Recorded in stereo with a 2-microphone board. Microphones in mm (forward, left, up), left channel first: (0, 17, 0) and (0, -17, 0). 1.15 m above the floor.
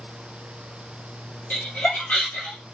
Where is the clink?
I don't hear a clink.